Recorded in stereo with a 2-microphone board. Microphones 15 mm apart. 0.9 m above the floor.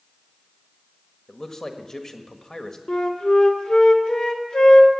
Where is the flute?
65° left (ahead or behind), 1.7 m.